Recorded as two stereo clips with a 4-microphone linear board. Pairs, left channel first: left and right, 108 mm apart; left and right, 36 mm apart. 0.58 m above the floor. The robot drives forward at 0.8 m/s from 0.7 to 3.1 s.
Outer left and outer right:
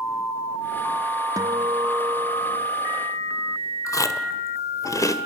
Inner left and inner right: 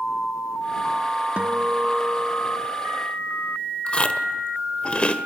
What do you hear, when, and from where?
1.4 s a guitar: 35° right (ahead or behind), 1.3 m; by 2.7 s 25° right (ahead or behind), 1.6 m
3.9 s chewing: 30° left (ahead or behind), 1.4 m